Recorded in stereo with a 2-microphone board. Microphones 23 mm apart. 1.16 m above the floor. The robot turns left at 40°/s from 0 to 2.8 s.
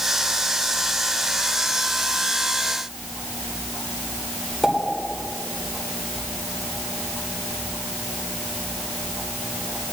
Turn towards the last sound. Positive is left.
turn(degrees=5)  # may be behind; listen again after turning